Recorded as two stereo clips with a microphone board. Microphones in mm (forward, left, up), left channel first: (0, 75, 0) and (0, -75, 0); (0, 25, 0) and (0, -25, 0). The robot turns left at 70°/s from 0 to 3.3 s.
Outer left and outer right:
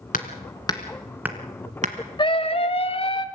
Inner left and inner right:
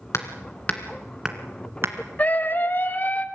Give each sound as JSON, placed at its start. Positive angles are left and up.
{"t": 0.1, "sound": "hammering", "side_deg": 65, "distance_m": 2.0}
{"t": 2.2, "sound": "a scream", "azimuth_deg": 125, "distance_m": 1.6}